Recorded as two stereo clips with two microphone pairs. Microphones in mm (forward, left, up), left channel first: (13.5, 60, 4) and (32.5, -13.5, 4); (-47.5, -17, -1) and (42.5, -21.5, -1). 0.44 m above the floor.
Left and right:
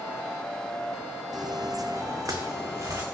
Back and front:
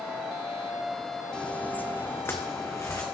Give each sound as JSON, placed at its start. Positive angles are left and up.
{"t": 1.3, "sound": "footsteps", "azimuth_deg": -100, "distance_m": 1.0}